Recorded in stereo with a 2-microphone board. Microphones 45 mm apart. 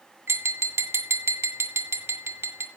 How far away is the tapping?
About 2.5 m.